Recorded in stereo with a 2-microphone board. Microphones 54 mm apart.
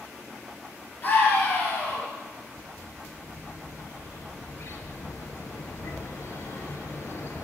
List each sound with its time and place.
1.0 s a scream: 35° left (ahead or behind), 2 m
2.6 s a bird: 55° left (ahead or behind), 0.7 m